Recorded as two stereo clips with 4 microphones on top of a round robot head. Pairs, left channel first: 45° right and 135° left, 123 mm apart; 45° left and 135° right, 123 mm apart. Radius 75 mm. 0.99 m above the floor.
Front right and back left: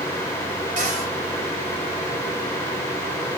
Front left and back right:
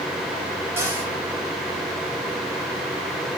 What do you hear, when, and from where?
0.8 s a cupboard door: 150° left, 3.5 m